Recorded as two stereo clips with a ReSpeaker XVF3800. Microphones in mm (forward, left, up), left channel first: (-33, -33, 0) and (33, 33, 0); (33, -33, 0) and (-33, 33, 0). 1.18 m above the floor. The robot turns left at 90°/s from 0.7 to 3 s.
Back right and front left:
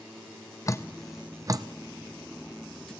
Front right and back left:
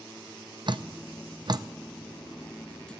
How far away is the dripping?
About 0.6 m.